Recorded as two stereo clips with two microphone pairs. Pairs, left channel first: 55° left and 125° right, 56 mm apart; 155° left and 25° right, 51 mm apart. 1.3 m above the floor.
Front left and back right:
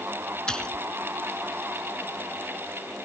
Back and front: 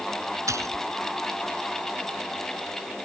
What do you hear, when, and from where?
0.5 s a splash: 20° right